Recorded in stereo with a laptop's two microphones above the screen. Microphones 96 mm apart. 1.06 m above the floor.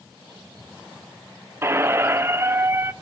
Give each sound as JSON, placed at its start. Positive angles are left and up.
{"t": 1.6, "sound": "a squeak", "side_deg": -25, "distance_m": 0.5}